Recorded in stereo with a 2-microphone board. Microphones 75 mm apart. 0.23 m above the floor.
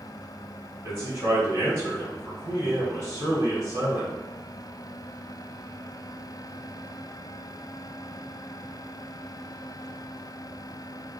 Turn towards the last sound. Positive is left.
turn(degrees=-35)  # may be behind; listen again after turning